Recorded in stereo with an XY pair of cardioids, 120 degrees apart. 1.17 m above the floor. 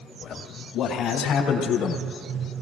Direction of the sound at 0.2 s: 60° left.